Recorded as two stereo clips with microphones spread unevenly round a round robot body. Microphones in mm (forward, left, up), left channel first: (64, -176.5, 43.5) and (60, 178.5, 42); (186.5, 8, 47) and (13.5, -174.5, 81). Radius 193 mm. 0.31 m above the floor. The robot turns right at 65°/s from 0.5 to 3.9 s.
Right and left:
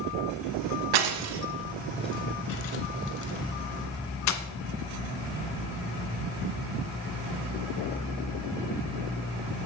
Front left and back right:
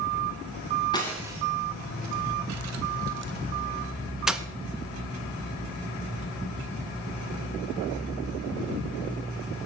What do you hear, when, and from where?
0.9 s breaking glass: 120° left, 1.6 m; by 4.4 s 45° right, 1.6 m